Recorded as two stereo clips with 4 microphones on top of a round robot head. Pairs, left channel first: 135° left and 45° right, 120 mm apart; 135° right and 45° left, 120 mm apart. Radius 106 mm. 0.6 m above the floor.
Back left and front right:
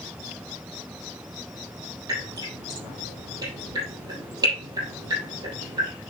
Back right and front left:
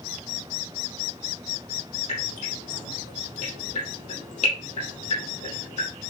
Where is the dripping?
105° right, 5 m.